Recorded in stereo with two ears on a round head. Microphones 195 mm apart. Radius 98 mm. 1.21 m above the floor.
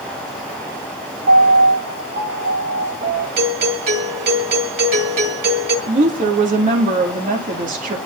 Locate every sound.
1.3 s a piano: 40° right (ahead or behind), 3.5 m
3.4 s a doorbell: 50° right (ahead or behind), 2.5 m
5.9 s a woman speaking: 35° right (ahead or behind), 2.5 m